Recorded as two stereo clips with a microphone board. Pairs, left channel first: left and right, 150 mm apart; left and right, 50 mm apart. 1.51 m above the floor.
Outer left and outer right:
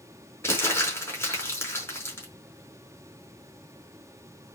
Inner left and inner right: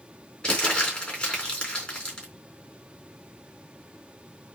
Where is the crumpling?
15° left (ahead or behind), 4.5 m.